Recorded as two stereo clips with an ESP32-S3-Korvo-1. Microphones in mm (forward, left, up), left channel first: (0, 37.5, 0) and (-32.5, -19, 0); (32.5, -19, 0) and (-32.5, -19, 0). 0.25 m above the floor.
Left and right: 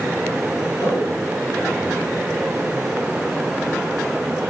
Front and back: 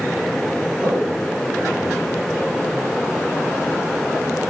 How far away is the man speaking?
About 5 m.